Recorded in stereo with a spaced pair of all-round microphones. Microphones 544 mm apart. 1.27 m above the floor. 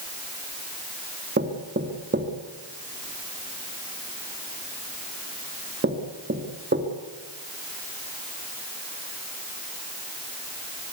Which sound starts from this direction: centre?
Knocking, at 1.4 s.